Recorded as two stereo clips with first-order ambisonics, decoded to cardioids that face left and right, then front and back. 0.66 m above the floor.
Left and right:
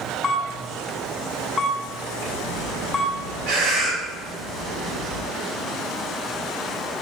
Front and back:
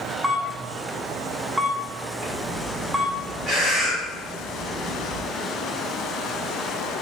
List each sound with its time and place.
0.2 s a camera shutter: 120° left, 0.7 m
2.2 s breathing: 100° right, 3.5 m